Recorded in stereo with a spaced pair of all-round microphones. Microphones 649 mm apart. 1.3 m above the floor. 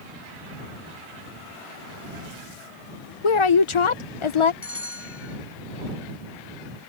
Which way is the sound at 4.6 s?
20° left (ahead or behind).